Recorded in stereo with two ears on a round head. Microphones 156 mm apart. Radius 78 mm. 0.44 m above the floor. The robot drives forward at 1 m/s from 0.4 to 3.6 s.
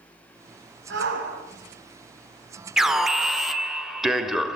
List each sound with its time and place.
0.9 s a shout: 70° right (ahead or behind), 6 m
2.8 s an alarm: 5° right (ahead or behind), 1.4 m; by 4.6 s centre (ahead or behind), 1.9 m